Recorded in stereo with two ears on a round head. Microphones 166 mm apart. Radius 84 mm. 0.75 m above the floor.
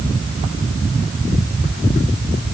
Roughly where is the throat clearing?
No throat clearing in this recording.